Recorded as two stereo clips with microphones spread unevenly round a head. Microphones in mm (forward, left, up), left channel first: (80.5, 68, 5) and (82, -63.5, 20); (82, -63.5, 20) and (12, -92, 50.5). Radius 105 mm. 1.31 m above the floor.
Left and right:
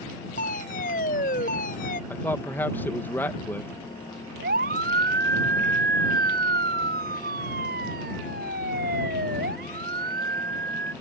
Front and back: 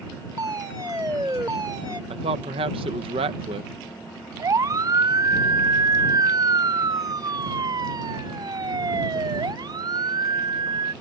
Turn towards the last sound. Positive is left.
turn(degrees=-135)